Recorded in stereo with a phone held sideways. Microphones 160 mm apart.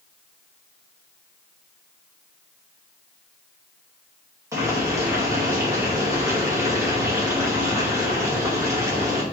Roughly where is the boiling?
Centre.